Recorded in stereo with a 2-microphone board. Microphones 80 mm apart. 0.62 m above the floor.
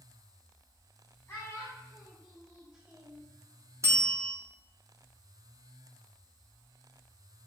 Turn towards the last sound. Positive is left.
turn(degrees=-40)  # may be behind; listen again after turning